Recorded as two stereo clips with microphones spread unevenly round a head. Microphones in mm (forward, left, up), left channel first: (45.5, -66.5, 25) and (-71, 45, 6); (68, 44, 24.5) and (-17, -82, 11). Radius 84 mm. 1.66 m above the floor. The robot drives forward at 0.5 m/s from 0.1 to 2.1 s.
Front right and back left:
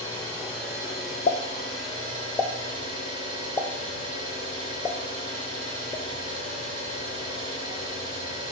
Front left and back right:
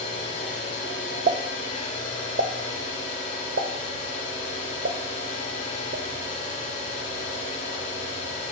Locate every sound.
0.0 s an engine running: 55° left, 4 m; by 8.5 s 70° left, 3.5 m
1.3 s a pop: 85° right, 0.7 m; by 8.5 s 120° right, 0.8 m